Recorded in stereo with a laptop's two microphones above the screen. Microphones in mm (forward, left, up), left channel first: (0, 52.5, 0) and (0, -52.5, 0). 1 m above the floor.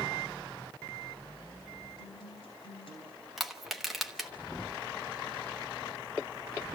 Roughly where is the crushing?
Centre.